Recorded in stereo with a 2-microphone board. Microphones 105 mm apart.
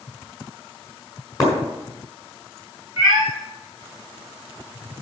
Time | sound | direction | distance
1.4 | breaking glass | 35° left (ahead or behind) | 5.5 m
3.0 | a cat meowing | 40° left (ahead or behind) | 5 m